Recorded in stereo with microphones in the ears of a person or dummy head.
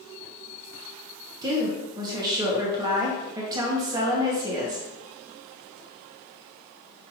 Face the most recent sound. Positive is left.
turn(degrees=-20)  # may be behind; listen again after turning